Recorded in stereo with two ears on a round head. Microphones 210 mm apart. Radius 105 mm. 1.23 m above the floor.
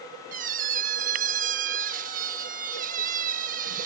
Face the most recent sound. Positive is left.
turn(degrees=-35)  # may be behind; listen again after turning